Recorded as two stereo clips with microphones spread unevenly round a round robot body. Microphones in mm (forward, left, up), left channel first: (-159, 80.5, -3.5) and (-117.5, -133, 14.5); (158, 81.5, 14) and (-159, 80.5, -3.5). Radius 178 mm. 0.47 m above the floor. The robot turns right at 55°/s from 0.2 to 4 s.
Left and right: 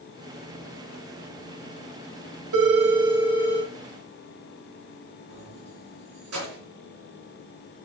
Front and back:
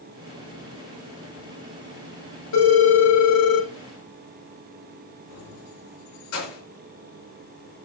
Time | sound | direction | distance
2.5 | a phone ringing | 50° right | 1.5 m
5.3 | keys jangling | 40° right | 4.5 m